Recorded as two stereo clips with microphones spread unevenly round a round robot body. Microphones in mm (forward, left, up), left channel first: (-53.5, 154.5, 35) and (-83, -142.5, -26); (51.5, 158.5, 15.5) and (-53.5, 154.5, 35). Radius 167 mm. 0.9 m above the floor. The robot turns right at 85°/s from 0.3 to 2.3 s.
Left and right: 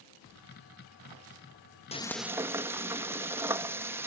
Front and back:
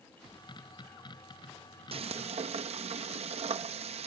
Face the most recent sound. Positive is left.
turn(degrees=-170)